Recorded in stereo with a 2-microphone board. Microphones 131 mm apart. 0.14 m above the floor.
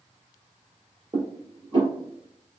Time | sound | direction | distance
1.1 | dishes clattering | 40° right (ahead or behind) | 1.6 m